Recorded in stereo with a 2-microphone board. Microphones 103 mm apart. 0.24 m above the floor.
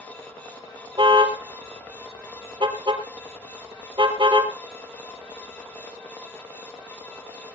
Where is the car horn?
50° right (ahead or behind), 3 m.